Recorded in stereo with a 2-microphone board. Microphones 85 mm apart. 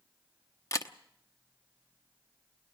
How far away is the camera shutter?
About 0.9 m.